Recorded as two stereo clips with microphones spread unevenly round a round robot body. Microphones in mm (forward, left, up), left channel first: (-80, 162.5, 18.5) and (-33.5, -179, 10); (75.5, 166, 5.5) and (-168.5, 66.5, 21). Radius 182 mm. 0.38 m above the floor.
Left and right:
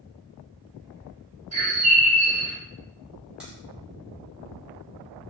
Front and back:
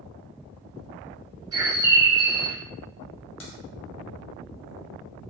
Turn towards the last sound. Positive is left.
turn(degrees=5)